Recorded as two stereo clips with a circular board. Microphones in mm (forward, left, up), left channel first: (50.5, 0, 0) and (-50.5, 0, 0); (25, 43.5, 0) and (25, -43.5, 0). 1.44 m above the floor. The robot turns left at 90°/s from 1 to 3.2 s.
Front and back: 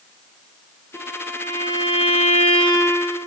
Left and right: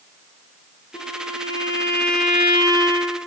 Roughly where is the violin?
Left.